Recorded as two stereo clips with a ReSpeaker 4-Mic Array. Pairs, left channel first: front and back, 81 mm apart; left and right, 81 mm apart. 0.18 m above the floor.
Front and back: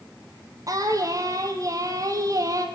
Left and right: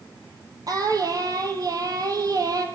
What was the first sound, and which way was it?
Singing, 135° right.